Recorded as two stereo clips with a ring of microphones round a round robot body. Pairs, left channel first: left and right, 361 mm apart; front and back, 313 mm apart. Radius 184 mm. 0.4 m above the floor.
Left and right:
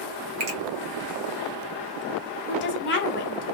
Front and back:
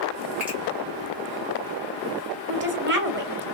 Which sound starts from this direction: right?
A finger snap, at 0.4 s.